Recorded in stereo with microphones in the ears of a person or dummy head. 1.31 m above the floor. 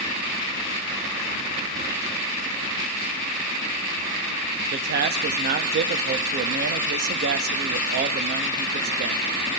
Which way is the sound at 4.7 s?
45° right (ahead or behind).